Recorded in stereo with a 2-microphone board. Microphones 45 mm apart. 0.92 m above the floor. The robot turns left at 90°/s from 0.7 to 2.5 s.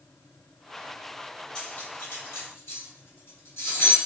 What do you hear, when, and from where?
1.6 s cutlery clinking: 30° left (ahead or behind), 1.3 m; by 4.0 s 65° left (ahead or behind), 1.3 m